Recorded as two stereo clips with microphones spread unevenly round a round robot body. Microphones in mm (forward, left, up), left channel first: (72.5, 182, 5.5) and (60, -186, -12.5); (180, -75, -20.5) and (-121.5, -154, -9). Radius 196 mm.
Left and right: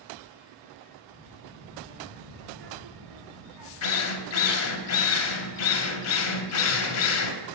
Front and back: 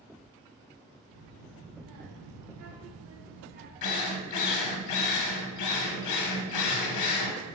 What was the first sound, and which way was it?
A child speaking, 170° right.